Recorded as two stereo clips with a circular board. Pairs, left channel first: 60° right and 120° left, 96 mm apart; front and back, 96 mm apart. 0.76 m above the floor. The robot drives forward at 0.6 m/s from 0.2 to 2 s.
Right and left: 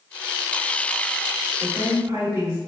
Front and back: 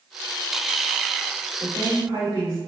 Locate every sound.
1.6 s a woman speaking: 170° left, 1.7 m